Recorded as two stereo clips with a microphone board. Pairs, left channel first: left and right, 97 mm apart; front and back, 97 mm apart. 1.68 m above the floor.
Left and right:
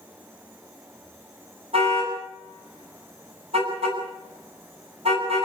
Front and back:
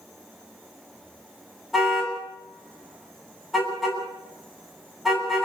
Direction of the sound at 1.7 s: 90° right.